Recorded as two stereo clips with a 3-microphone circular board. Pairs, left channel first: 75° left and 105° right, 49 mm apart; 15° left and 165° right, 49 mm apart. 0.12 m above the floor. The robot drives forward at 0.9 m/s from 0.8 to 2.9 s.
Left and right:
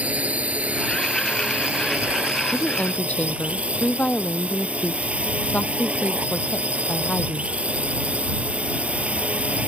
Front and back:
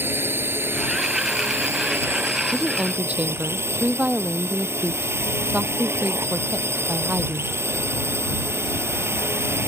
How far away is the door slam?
No door slam in this recording.